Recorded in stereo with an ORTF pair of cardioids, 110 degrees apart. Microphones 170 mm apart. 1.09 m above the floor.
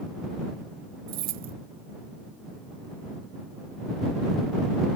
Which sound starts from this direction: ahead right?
Keys jangling, at 1.1 s.